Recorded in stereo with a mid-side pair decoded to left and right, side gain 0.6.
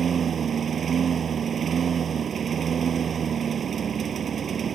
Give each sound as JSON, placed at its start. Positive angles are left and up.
{"t": 0.0, "sound": "a lawn mower", "azimuth_deg": -35}